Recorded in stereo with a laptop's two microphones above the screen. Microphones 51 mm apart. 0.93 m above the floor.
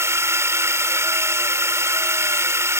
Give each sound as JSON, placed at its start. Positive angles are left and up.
{"t": 0.0, "sound": "a drone", "side_deg": -75}